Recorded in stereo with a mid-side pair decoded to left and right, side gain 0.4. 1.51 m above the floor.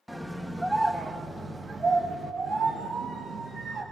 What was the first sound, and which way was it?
A scream, straight ahead.